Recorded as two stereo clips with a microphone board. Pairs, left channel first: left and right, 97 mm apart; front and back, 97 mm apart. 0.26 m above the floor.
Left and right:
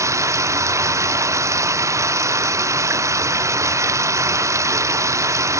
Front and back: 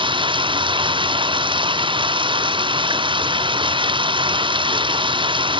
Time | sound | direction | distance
0.0 | running water | 150° right | ?